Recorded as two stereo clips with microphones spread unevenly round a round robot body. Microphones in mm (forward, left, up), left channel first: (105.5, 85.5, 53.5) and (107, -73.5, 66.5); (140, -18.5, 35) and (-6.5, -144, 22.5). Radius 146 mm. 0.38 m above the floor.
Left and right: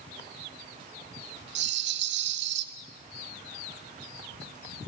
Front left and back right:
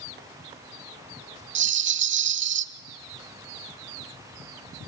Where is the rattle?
110° right, 0.6 m.